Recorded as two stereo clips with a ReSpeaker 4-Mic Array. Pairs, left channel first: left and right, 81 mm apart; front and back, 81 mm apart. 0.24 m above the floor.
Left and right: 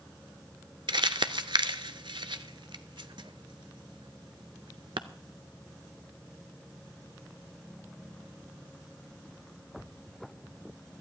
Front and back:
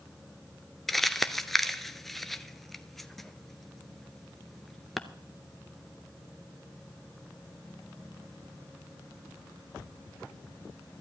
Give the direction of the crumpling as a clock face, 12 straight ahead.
3 o'clock.